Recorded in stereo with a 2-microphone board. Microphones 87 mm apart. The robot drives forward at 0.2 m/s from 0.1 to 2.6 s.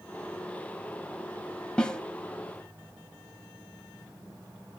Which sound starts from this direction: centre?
A snare drum, at 1.8 s.